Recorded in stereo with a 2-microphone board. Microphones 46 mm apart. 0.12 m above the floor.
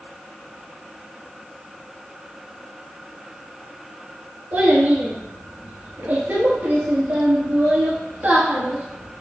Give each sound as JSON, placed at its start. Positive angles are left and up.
{"t": 4.5, "sound": "a child speaking", "side_deg": -55, "distance_m": 1.3}